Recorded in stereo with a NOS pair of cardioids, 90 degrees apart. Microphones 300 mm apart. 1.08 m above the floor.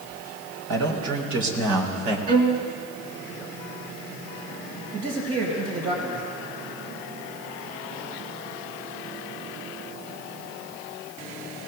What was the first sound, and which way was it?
A man speaking, 70° right.